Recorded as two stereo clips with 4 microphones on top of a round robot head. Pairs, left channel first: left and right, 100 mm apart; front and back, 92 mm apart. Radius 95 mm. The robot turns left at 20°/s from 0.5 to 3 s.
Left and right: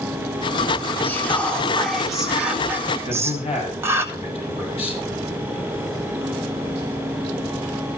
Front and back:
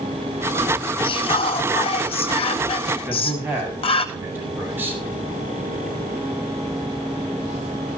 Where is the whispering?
20° left, 2 m; by 4.0 s 20° right, 2 m.